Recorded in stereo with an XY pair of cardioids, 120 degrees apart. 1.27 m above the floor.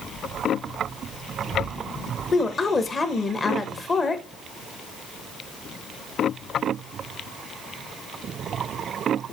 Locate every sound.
2.3 s a woman speaking: 30° left, 1.0 m